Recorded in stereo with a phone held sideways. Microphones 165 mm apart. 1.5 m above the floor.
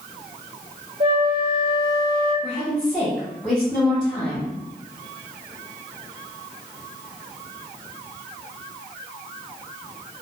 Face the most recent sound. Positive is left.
turn(degrees=10)  # may be behind; listen again after turning